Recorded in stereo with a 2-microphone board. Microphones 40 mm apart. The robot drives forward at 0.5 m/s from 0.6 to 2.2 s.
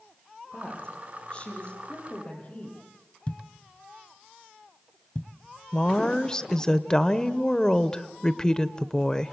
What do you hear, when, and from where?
0.5 s a woman speaking: 25° left (ahead or behind), 9 m
3.3 s a thud: 35° left (ahead or behind), 1.1 m
5.7 s a woman speaking: 20° left (ahead or behind), 0.8 m